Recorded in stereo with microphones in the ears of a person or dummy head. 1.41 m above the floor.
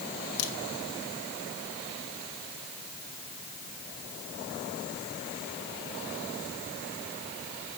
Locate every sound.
0.4 s a crack: 75° left (ahead or behind), 1.9 m